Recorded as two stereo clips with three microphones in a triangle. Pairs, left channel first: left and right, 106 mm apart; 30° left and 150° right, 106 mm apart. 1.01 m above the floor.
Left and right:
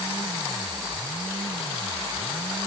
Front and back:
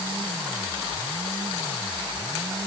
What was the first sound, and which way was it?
Only background noise.